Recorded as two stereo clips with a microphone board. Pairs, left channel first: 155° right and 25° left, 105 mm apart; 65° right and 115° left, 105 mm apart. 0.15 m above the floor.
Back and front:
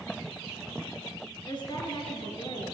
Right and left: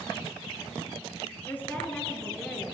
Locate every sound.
1.5 s a woman speaking: 135° right, 2.5 m; by 2.7 s 160° right, 2.5 m